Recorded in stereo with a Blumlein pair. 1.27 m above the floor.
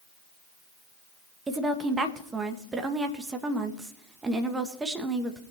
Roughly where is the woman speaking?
Ahead.